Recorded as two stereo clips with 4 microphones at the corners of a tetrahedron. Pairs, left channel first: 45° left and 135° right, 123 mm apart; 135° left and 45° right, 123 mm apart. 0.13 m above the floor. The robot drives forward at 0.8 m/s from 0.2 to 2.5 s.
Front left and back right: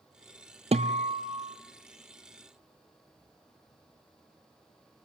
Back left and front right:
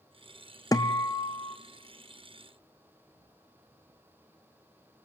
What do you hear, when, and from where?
0.7 s a guitar: 165° right, 1.0 m; by 1.6 s 170° right, 1.7 m